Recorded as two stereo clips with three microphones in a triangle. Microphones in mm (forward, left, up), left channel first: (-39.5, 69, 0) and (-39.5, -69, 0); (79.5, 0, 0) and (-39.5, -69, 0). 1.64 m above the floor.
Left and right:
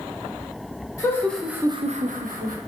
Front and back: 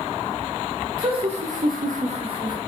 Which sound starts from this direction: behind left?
Laughter, at 1.0 s.